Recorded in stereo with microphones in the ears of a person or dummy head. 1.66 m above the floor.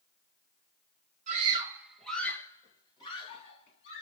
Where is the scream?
35° right (ahead or behind), 1.2 m; by 4.0 s 40° left (ahead or behind), 3.5 m.